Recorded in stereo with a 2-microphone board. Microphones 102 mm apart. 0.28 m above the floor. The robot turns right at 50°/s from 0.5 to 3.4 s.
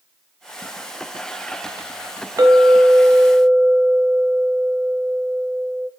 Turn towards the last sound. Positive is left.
turn(degrees=-55)